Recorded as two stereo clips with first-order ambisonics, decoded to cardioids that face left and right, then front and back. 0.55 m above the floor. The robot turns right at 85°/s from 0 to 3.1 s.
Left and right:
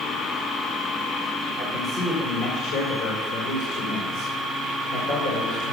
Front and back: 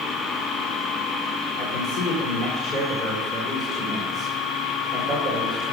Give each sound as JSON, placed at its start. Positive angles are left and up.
{"t": 1.6, "sound": "a man speaking", "azimuth_deg": -25, "distance_m": 2.5}